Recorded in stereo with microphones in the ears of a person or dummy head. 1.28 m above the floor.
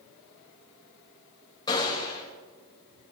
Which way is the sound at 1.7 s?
25° left (ahead or behind).